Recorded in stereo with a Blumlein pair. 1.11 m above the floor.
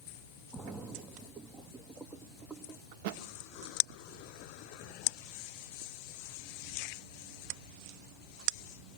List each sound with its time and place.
0.5 s a splash: 15° right, 1.1 m
2.9 s a thud: 50° right, 1.3 m